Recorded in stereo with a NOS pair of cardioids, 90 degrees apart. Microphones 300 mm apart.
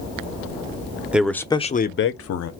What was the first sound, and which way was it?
A man speaking, 5° right.